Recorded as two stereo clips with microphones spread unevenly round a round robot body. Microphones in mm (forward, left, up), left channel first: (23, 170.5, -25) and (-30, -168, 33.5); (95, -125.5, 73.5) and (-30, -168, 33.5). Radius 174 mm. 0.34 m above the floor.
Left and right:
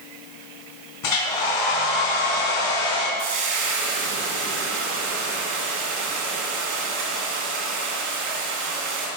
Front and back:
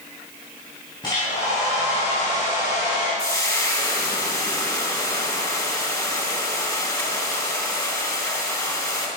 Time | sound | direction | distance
1.0 | a hair dryer | 95° left | 4 m
3.2 | frying | 55° right | 3 m